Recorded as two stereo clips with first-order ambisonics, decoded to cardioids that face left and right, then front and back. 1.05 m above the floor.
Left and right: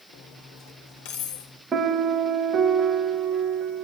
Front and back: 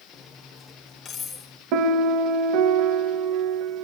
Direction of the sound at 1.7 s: 160° right.